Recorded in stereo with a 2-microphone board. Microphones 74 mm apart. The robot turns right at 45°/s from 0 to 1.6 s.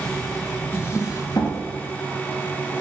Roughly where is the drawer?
Ahead left.